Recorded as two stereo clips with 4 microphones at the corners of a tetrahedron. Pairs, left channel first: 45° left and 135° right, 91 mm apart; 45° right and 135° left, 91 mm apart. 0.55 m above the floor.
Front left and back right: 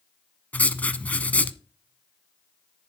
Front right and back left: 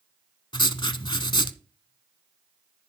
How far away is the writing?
About 0.7 m.